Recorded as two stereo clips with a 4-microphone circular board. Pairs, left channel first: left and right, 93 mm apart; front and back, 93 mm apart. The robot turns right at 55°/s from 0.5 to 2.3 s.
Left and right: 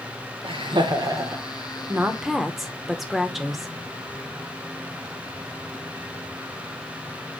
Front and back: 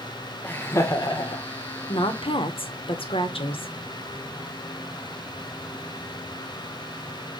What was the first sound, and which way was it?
Laughter, 70° right.